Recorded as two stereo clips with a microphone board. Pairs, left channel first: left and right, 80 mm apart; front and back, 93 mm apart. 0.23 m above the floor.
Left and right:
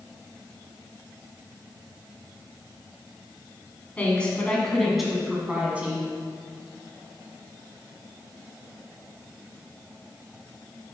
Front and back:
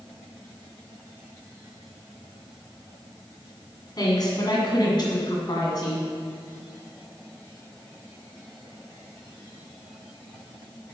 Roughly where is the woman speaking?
Ahead left.